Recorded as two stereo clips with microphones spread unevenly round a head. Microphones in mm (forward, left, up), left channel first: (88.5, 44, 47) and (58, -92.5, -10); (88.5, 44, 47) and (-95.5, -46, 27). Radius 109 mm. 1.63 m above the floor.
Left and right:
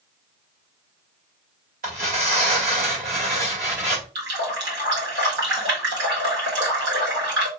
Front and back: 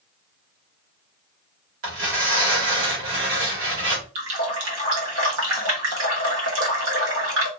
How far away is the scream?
No scream in this recording.